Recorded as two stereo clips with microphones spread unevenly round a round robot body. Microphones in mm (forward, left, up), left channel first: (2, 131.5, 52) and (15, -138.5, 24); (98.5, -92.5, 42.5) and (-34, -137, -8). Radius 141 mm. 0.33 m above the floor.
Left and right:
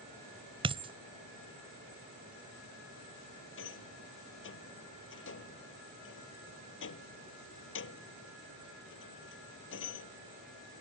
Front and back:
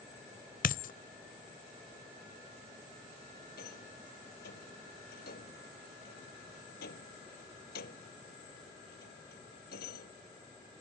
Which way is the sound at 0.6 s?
20° right.